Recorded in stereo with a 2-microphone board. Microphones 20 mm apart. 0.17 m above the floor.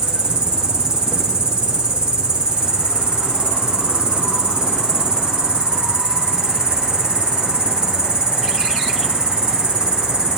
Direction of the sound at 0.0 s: 70° right (ahead or behind).